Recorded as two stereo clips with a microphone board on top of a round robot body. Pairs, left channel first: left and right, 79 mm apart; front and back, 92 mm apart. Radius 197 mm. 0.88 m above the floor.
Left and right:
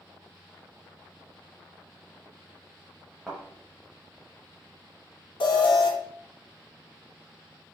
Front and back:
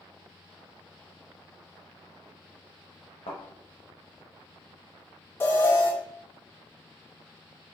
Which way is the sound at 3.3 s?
10° right.